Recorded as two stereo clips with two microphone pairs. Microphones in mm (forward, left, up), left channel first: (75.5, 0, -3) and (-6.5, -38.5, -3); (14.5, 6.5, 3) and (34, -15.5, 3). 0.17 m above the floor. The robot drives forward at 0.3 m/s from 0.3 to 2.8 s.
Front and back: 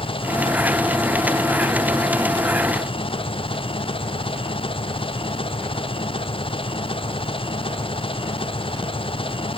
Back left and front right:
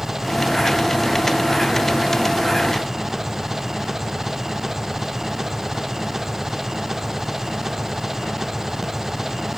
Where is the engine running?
25° left; by 9.6 s 30° left.